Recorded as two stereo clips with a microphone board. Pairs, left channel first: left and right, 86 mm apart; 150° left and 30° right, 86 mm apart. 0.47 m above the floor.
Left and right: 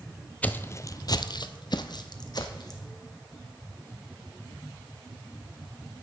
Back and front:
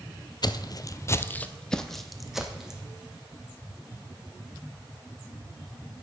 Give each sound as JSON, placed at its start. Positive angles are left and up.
{"t": 0.4, "sound": "footsteps", "azimuth_deg": 160, "distance_m": 0.7}